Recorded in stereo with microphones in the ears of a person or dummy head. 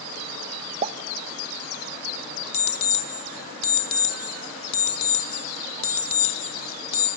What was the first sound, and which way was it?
A pop, 35° right (ahead or behind).